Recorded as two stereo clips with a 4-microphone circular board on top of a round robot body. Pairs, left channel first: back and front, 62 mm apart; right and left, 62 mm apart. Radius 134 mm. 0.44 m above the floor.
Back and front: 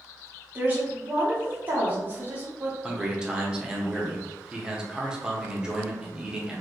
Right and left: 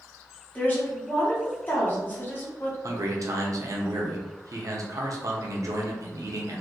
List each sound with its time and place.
0.6 s a woman speaking: 45° right, 1.7 m
2.8 s a man speaking: 75° left, 1.3 m